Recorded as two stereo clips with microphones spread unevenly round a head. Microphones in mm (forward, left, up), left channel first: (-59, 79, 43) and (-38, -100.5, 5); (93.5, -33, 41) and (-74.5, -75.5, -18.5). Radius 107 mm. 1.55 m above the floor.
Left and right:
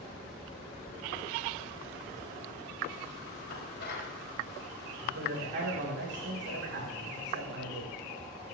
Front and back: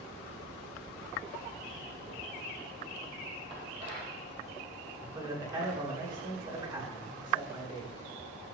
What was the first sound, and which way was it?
Dishes clattering, 125° left.